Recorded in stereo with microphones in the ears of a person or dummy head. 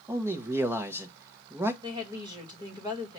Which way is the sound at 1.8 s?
25° right (ahead or behind).